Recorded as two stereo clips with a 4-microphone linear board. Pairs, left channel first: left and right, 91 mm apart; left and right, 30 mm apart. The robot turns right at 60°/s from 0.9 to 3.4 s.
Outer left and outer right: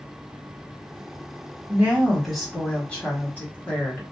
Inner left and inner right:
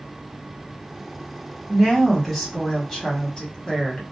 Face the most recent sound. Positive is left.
turn(degrees=20)  # may be behind; listen again after turning